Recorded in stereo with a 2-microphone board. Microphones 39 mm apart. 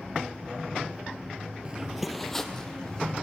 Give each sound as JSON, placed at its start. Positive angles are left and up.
{"t": 1.6, "sound": "footsteps", "side_deg": -25, "distance_m": 0.5}